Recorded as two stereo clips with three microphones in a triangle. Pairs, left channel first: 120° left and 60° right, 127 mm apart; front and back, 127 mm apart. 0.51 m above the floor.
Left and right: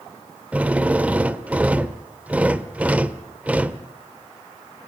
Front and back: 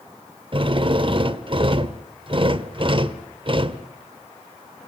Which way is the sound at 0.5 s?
140° right.